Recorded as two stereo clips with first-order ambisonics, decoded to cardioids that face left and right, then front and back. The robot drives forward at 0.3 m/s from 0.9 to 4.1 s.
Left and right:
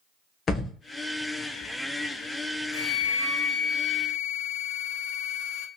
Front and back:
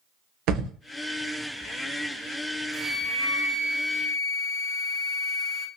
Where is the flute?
90° left, 0.5 m; by 5.7 s 130° left, 0.7 m.